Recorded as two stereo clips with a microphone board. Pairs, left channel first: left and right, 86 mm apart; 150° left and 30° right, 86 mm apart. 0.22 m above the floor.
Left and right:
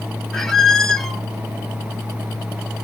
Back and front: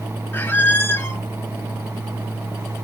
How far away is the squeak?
About 0.5 m.